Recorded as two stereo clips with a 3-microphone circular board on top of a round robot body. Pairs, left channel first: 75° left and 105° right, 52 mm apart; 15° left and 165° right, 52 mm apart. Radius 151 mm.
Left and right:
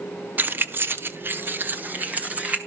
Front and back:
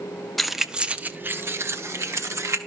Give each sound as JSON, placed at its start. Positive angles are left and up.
{"t": 0.4, "sound": "keys jangling", "azimuth_deg": -70, "distance_m": 0.9}